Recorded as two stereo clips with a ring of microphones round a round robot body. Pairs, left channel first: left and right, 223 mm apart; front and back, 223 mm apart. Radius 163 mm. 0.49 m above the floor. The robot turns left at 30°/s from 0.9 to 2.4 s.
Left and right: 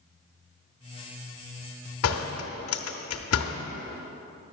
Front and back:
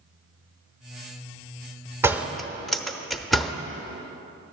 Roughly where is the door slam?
Left.